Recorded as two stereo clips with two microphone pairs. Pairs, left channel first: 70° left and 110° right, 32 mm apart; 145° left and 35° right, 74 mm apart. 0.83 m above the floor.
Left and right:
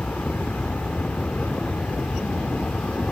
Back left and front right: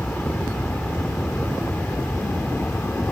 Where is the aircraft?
75° left; by 3.1 s 85° left.